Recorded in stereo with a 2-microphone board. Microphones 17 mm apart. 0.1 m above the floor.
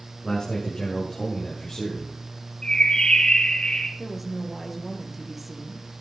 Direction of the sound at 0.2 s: 45° left (ahead or behind).